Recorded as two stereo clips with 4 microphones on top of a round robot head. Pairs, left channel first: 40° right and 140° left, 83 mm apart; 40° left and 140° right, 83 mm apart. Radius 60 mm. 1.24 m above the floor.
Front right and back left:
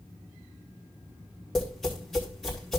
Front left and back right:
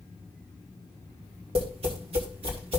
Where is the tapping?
125° right, 3 m.